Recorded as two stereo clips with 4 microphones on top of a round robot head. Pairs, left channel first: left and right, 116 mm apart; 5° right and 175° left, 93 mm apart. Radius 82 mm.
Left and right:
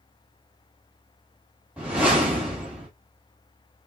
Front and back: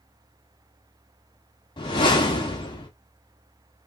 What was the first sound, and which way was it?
A whoosh, 10° right.